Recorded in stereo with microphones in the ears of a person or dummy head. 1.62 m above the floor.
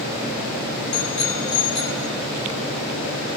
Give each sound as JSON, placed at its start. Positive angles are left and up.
{"t": 0.9, "sound": "a bicycle bell", "side_deg": 35, "distance_m": 4.5}